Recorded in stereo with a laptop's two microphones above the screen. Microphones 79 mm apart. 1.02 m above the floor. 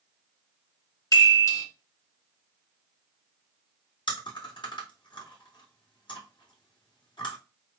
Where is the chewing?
75° left (ahead or behind), 1.7 m.